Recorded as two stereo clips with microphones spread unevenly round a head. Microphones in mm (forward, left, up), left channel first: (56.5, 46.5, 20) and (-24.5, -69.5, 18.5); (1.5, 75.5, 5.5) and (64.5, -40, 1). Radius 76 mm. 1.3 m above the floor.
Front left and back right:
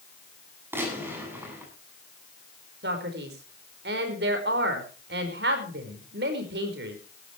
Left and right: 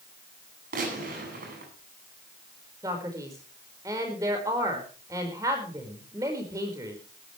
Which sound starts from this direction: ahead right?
A gunshot, at 0.7 s.